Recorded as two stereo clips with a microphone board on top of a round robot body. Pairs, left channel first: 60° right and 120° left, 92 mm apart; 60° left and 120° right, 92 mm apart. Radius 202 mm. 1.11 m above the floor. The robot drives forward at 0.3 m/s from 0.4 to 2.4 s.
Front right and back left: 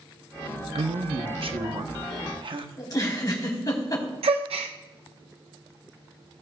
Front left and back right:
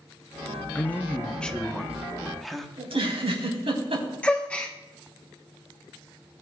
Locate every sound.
0.8 s a man speaking: 130° left, 0.9 m; by 2.7 s 150° left, 1.2 m
2.8 s a giggle: 110° right, 4 m
4.2 s a gasp: 140° left, 0.6 m